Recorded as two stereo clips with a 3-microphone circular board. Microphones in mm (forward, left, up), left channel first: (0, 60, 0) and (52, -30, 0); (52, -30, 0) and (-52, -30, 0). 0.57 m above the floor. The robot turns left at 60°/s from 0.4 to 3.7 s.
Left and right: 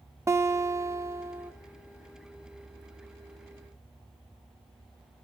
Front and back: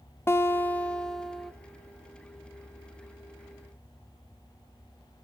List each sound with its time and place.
0.3 s a guitar: 35° right, 0.9 m; by 1.5 s 105° right, 0.9 m